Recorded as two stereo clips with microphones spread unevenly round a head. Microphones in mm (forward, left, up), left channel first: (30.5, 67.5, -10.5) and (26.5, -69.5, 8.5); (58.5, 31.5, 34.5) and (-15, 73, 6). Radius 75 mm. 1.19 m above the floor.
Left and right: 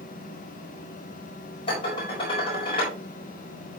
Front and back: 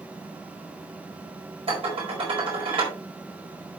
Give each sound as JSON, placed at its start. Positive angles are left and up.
{"t": 1.7, "sound": "dishes clattering", "azimuth_deg": 150, "distance_m": 4.5}